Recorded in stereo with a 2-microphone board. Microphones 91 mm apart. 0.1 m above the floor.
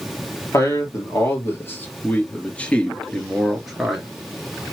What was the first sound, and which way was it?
A man speaking, 35° left (ahead or behind).